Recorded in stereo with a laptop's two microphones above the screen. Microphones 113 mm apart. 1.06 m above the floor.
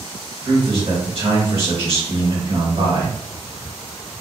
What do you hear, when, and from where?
0.5 s a man speaking: 55° right (ahead or behind), 1.6 m